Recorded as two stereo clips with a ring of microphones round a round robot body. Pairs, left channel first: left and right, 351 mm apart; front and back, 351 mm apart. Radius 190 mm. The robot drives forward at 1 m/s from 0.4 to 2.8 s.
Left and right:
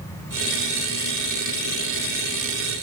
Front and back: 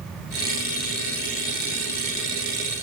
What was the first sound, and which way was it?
Only background noise.